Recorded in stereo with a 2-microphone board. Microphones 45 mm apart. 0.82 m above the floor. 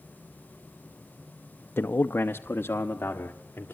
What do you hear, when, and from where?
1.8 s a man speaking: 60° left (ahead or behind), 0.6 m; by 3.7 s 50° left (ahead or behind), 1.9 m